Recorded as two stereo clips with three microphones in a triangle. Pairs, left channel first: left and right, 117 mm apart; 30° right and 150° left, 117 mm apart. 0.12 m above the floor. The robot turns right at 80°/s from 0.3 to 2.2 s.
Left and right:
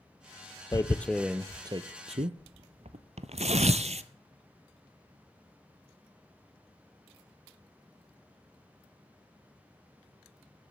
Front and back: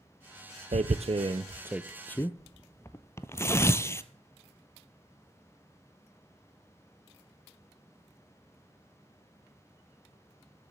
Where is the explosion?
No explosion in this recording.